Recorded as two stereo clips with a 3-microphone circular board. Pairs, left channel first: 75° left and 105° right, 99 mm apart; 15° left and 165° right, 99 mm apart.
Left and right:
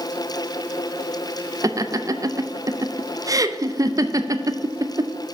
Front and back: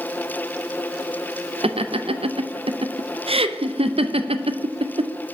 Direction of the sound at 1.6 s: 155° right.